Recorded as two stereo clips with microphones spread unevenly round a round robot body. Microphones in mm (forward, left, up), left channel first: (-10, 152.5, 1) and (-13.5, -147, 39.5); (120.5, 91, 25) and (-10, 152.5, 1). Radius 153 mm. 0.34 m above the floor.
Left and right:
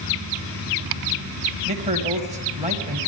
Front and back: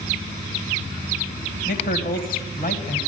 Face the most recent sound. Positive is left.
turn(degrees=-20)